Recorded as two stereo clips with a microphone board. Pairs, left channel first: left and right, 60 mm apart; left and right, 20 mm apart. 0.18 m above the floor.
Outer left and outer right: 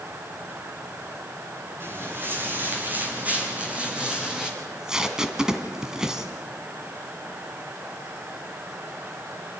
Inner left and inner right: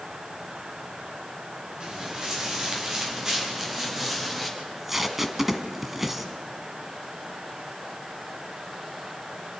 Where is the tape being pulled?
10° right (ahead or behind), 1.4 m.